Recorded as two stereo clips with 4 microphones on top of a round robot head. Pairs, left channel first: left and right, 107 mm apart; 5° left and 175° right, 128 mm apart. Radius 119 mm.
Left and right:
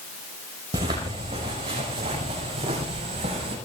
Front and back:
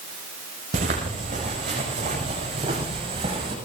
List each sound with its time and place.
0.7 s footsteps: 140° right, 5.5 m; by 3.5 s 125° right, 7 m